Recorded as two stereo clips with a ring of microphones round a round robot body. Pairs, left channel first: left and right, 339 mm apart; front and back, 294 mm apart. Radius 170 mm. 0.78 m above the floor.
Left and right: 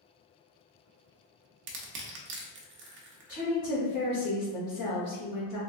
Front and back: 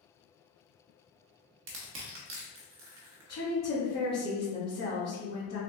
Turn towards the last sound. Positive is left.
turn(degrees=50)